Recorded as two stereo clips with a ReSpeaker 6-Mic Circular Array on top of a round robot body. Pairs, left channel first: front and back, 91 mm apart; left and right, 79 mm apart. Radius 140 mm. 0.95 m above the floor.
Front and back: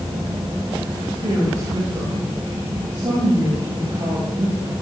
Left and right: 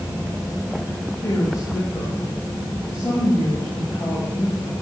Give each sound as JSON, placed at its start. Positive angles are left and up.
{"t": 1.2, "sound": "a woman speaking", "azimuth_deg": 140, "distance_m": 6.5}